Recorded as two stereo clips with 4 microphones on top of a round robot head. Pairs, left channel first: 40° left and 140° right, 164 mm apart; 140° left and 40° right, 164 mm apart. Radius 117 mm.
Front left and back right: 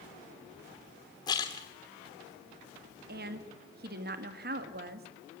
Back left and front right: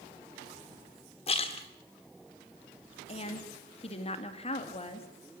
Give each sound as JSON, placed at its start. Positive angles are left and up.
{"t": 1.3, "sound": "a splash", "azimuth_deg": 100, "distance_m": 0.9}
{"t": 3.1, "sound": "a woman speaking", "azimuth_deg": -165, "distance_m": 1.9}